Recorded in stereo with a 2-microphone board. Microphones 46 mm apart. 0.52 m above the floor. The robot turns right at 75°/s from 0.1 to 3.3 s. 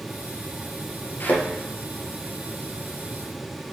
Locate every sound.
1.2 s a thud: 50° left (ahead or behind), 2.5 m; by 1.4 s 30° left (ahead or behind), 2.5 m